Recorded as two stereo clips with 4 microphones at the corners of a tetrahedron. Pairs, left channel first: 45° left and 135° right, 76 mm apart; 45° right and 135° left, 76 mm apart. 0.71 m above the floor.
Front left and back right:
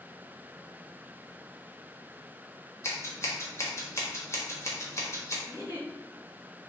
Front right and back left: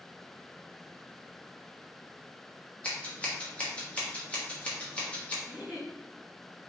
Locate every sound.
2.8 s scissors: 20° left, 1.3 m
5.5 s a giggle: 60° left, 1.9 m